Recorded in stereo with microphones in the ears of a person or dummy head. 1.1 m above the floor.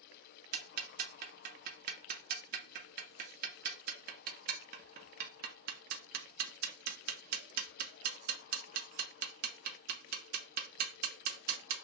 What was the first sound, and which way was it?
Ticking, 50° right (ahead or behind).